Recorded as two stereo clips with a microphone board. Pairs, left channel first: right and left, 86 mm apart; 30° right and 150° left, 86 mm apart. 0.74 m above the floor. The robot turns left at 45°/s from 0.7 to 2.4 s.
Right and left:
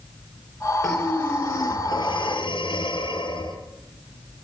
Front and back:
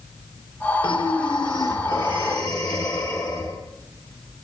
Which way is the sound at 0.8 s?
5° right.